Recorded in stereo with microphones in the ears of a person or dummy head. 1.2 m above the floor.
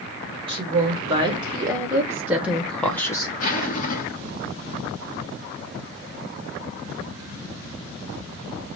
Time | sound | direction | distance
0.5 | a woman speaking | 35° right (ahead or behind) | 2 m
3.4 | a zipper | 40° left (ahead or behind) | 1.2 m